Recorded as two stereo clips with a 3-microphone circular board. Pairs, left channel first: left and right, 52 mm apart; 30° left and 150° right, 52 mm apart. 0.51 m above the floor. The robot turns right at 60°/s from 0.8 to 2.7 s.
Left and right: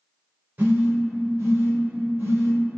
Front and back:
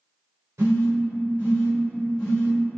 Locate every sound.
0.6 s a phone buzzing: 135° right, 1.0 m; by 2.6 s 30° right, 1.0 m